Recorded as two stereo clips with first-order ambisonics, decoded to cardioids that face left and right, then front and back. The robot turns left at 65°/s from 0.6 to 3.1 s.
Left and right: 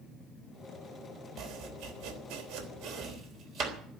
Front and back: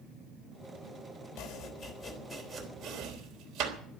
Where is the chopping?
25° right, 3.5 m; by 3.8 s 135° right, 3.5 m.